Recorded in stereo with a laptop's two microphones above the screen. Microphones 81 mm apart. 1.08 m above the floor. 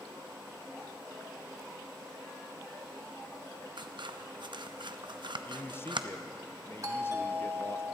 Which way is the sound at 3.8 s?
75° right (ahead or behind).